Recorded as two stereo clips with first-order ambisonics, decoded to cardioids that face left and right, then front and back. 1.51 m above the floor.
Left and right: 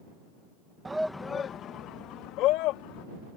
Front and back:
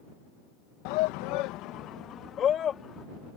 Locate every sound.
0.8 s a shout: 10° right; by 3.0 s 65° left